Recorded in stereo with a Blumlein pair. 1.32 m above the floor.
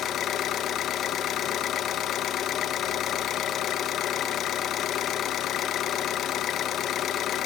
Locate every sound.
0.0 s an engine running: 30° left, 0.9 m